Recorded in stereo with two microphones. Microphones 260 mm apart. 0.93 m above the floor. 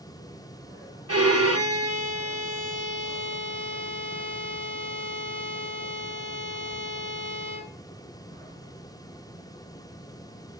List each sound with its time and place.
1.1 s a violin: 65° right (ahead or behind), 1.9 m